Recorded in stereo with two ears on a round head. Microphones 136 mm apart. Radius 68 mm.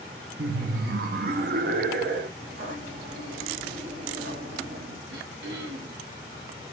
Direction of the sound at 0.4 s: 65° right (ahead or behind).